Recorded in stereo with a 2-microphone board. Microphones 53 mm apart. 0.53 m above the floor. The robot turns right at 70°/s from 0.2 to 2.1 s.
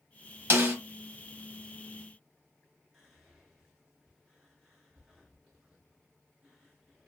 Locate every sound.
0.5 s a snare drum: 50° right (ahead or behind), 0.9 m; by 0.8 s 30° right (ahead or behind), 0.9 m
2.9 s whispering: centre (ahead or behind), 1.0 m